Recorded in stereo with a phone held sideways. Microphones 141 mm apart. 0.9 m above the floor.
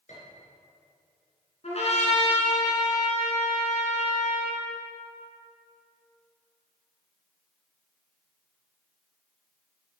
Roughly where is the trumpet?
Left.